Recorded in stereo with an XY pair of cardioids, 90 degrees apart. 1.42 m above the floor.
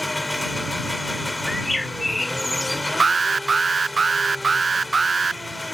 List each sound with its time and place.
0.0 s an engine running: 15° left
1.5 s a bird: 15° left
3.0 s an alarm: 30° right